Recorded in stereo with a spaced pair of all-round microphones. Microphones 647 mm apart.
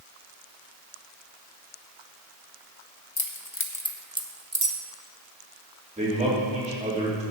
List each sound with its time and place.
3.2 s keys jangling: 35° left (ahead or behind), 0.9 m; by 4.8 s 35° right (ahead or behind), 0.9 m
6.0 s a man speaking: 10° right (ahead or behind), 3 m